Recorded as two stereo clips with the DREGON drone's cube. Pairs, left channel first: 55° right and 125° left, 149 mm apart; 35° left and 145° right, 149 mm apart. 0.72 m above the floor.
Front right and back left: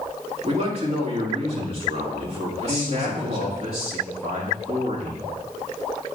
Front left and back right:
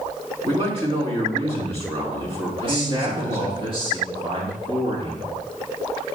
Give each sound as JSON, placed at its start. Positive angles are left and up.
{"t": 0.4, "sound": "a man speaking", "azimuth_deg": 170, "distance_m": 2.5}
{"t": 2.6, "sound": "a man speaking", "azimuth_deg": 165, "distance_m": 1.6}